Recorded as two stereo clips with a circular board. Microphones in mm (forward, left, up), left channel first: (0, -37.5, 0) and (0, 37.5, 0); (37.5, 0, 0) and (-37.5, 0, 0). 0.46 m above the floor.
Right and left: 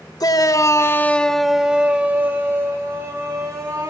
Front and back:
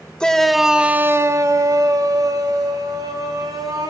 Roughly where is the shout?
Right.